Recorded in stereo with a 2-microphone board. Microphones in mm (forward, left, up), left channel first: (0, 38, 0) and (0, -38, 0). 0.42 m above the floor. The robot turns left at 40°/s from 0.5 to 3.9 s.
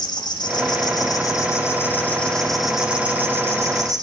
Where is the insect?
85° left, 1.6 m; by 4.0 s 50° right, 1.6 m.